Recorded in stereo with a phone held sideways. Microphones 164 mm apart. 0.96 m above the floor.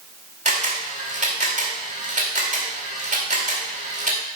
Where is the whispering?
No whispering in this recording.